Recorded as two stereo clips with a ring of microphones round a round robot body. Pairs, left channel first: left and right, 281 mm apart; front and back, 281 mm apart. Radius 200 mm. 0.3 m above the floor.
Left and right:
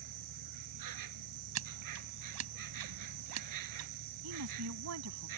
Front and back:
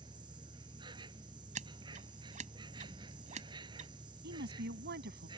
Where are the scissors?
115° right.